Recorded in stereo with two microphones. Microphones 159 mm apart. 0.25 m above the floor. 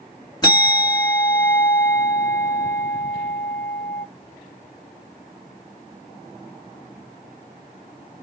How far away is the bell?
About 1.0 m.